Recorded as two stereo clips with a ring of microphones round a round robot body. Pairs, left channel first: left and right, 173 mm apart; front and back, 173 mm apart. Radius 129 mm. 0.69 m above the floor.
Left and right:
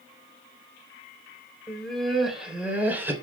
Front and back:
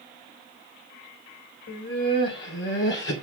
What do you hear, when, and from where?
1.7 s laughter: 5° left, 3.5 m; by 3.1 s 15° right, 3.5 m